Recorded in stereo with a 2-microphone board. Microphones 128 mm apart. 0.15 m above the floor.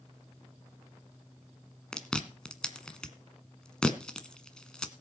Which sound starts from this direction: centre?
Chewing, at 1.9 s.